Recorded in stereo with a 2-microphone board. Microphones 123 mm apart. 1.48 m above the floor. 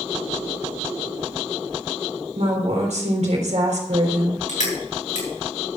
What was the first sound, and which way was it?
A woman speaking, 70° right (ahead or behind).